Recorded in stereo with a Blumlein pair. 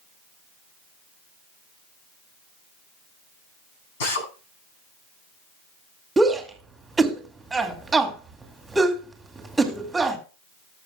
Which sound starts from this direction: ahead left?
A drill, at 4.0 s.